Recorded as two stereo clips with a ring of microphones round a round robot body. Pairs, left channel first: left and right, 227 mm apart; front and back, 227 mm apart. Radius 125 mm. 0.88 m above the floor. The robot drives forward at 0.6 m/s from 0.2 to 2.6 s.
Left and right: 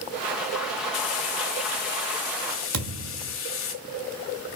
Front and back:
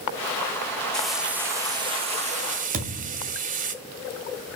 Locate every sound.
0.9 s frying: 85° left, 1.2 m; by 3.7 s 130° left, 1.5 m
2.7 s a thud: 120° right, 2 m